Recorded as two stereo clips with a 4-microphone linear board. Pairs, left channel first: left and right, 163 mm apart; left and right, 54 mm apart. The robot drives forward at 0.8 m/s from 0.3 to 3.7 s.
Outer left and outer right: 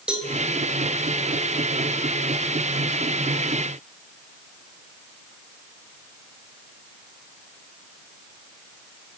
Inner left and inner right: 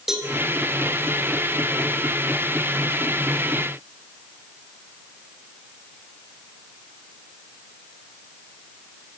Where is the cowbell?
5° right (ahead or behind), 4 m.